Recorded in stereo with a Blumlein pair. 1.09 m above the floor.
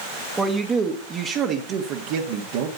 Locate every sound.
0.4 s a man speaking: 10° right, 1.3 m; by 2.7 s 50° right, 1.7 m